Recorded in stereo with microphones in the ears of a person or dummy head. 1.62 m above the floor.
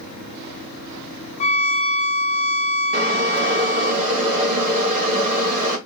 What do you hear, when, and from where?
1.4 s a violin: 35° left (ahead or behind), 0.5 m
2.9 s boiling: 40° right (ahead or behind), 2 m